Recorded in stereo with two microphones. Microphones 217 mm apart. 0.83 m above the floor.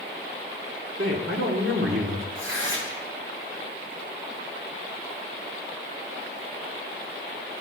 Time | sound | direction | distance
1.0 | a man speaking | 70° right (ahead or behind) | 2 m
2.4 | tearing paper | 65° right (ahead or behind) | 3 m